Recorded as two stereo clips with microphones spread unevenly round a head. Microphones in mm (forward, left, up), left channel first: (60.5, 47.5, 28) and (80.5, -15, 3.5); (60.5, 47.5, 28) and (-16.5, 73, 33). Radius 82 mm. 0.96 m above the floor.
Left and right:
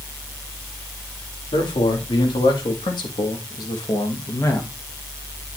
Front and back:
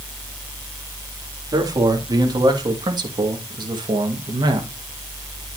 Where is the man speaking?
125° left, 2.5 m; by 4.7 s 175° right, 1.4 m.